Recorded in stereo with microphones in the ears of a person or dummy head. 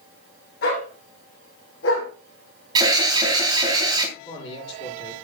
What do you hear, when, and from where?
0.6 s a dog barking: 65° left (ahead or behind), 5 m; by 2.1 s 80° left, 5 m
2.8 s an alarm: 25° right (ahead or behind), 2.5 m
4.2 s a man speaking: 25° left (ahead or behind), 9 m